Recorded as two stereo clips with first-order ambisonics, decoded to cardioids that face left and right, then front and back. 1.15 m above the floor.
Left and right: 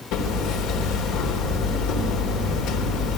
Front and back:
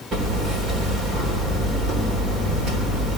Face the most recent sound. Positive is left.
turn(degrees=120)